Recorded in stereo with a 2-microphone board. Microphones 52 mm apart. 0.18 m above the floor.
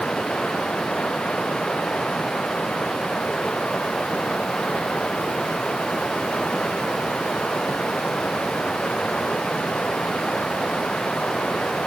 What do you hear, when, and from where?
0.0 s running water: 20° left (ahead or behind)